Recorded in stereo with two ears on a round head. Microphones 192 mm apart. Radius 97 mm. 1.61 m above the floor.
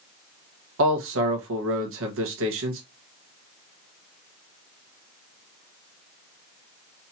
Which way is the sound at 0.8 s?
65° right (ahead or behind).